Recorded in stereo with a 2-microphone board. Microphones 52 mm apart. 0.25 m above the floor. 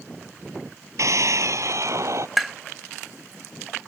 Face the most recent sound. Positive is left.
turn(degrees=0)  # may be behind; listen again after turning